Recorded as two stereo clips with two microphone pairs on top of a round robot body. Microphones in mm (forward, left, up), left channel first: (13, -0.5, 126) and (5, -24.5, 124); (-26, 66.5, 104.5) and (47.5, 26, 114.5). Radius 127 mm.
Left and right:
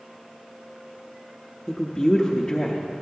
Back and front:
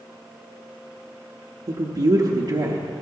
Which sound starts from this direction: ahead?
A woman speaking, at 1.7 s.